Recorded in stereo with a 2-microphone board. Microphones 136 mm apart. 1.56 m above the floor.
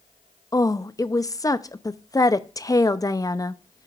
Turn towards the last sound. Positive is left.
turn(degrees=25)  # may be behind; listen again after turning